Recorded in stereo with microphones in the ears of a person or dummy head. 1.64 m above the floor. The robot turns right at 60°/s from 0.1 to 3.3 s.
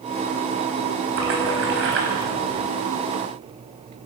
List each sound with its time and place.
1.2 s a splash: 115° right, 5.5 m; by 2.7 s 25° right, 5.5 m